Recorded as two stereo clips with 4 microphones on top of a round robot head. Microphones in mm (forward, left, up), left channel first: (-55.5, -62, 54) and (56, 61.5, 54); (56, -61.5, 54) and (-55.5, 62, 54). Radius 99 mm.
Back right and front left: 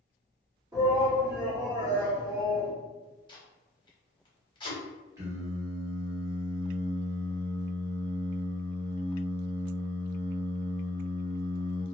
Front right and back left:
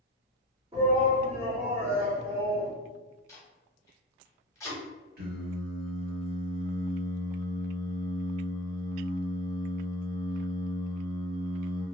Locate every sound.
0.7 s a shout: 100° left, 1.5 m
3.3 s tape being pulled: 105° right, 1.1 m
5.2 s singing: 115° left, 1.0 m